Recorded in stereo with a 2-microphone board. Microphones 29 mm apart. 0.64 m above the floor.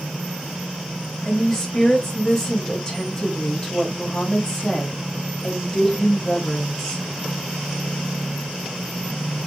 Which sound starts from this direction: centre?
A woman speaking, at 1.2 s.